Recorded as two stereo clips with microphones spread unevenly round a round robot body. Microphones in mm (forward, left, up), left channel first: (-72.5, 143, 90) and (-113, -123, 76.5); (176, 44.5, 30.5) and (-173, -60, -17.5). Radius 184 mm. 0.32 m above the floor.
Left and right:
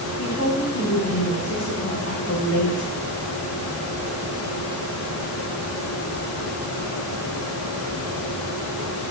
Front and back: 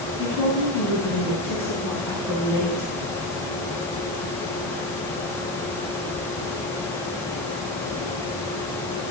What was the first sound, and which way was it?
A woman speaking, 115° left.